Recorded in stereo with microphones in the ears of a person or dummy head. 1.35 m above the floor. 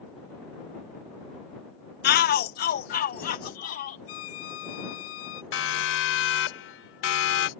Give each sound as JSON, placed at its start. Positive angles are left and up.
{"t": 2.0, "sound": "a shout", "side_deg": 50}
{"t": 4.1, "sound": "a violin", "side_deg": 75}
{"t": 5.5, "sound": "a siren", "side_deg": 85}